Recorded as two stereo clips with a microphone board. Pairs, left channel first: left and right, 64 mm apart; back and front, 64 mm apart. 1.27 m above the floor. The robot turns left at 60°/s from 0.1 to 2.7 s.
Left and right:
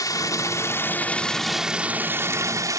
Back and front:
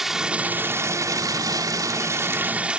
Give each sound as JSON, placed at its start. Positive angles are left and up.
{"t": 0.0, "sound": "running water", "azimuth_deg": 85}